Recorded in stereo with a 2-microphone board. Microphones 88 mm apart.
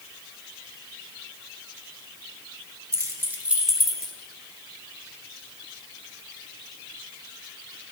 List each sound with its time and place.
2.9 s keys jangling: 35° right (ahead or behind), 0.7 m; by 4.1 s 10° left (ahead or behind), 0.9 m